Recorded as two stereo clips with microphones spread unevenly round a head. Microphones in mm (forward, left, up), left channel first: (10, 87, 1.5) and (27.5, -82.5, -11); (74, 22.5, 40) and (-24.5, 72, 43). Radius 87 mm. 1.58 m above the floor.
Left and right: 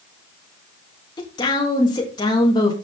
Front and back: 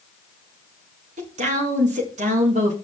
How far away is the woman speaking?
About 3 m.